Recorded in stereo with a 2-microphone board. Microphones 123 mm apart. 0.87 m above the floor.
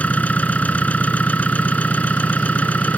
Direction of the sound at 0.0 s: 10° left (ahead or behind).